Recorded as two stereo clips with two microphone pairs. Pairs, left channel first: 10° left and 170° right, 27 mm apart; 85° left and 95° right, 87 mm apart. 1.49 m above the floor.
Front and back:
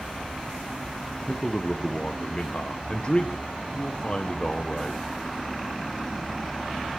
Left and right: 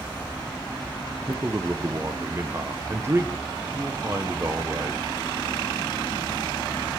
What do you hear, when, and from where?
1.3 s a man speaking: 45° right, 0.5 m